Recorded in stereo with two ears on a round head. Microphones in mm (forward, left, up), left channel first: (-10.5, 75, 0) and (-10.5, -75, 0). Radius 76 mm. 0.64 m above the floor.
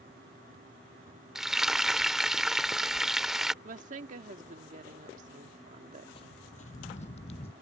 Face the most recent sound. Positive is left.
turn(degrees=35)  # may be behind; listen again after turning